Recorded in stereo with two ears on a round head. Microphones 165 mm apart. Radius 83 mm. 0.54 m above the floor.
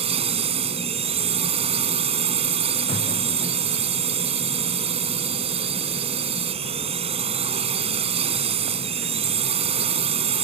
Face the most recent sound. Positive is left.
turn(degrees=-35)  # may be behind; listen again after turning